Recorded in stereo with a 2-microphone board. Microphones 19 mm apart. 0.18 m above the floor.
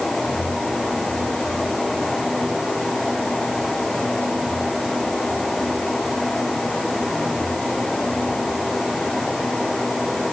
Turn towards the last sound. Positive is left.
No sound to turn to.